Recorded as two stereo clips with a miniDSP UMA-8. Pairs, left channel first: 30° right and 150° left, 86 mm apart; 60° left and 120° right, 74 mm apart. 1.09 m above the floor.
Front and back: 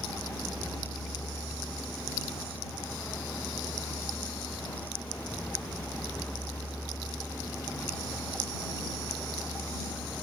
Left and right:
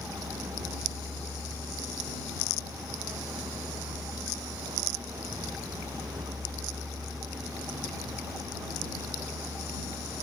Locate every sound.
0.0 s a vehicle: 100° right